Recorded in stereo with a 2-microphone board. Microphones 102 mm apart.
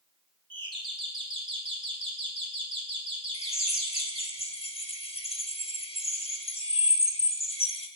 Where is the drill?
70° left (ahead or behind), 1.2 m.